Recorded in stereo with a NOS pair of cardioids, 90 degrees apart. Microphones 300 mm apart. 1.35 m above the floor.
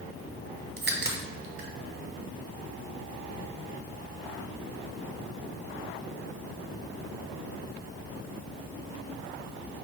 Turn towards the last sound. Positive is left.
turn(degrees=-35)